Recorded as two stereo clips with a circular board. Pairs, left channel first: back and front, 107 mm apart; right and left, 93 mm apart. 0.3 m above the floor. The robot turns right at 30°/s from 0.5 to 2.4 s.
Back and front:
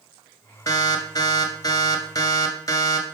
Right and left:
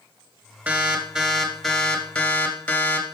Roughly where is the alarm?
Behind left.